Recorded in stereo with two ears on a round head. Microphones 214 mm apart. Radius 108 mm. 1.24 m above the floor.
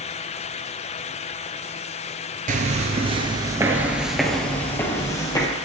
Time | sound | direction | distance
2.5 | footsteps | 35° right (ahead or behind) | 1.4 m